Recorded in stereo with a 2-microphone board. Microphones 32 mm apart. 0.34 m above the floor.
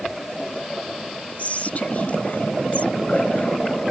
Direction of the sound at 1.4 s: 50° left (ahead or behind).